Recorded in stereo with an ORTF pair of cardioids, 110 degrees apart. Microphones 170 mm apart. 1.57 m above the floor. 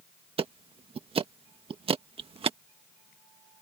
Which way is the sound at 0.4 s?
35° right.